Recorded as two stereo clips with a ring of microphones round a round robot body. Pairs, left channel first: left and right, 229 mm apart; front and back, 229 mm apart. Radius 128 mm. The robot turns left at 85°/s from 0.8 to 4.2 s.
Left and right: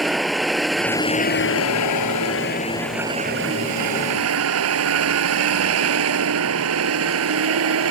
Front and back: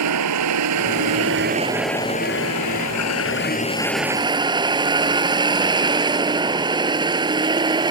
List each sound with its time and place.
0.0 s a vehicle: straight behind; by 7.9 s 110° right